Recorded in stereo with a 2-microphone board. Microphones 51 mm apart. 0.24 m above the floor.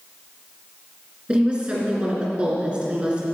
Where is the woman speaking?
20° right (ahead or behind), 2.5 m.